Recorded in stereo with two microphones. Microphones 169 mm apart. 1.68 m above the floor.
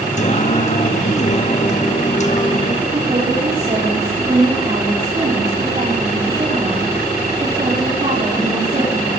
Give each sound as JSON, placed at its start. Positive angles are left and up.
{"t": 0.2, "sound": "singing", "side_deg": 45, "distance_m": 2.0}
{"t": 2.9, "sound": "a woman speaking", "side_deg": -40, "distance_m": 5.0}